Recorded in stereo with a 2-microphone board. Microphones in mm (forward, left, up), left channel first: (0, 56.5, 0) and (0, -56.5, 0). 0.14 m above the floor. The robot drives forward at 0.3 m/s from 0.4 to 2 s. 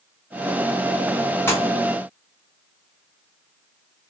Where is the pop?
20° left (ahead or behind), 1.5 m.